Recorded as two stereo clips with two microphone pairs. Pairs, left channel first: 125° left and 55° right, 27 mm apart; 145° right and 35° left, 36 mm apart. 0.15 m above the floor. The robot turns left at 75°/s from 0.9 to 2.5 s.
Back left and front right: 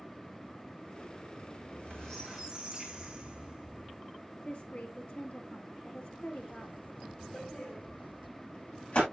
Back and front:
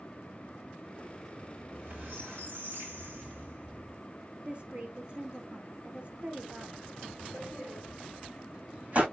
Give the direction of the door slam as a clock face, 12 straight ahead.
9 o'clock.